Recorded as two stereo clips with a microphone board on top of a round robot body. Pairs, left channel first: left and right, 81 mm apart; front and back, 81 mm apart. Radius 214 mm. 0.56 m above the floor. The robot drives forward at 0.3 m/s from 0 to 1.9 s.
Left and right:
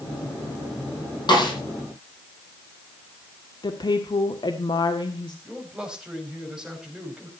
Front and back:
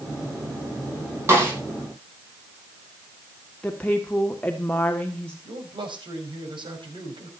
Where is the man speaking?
170° right, 5.5 m.